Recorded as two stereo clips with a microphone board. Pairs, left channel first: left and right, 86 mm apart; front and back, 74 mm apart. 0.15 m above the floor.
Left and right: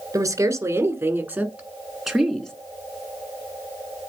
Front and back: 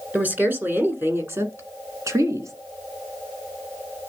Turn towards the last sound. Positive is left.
turn(degrees=170)